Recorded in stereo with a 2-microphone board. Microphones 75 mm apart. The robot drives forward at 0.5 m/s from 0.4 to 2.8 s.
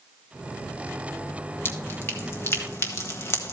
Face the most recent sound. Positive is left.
turn(degrees=35)  # may be behind; listen again after turning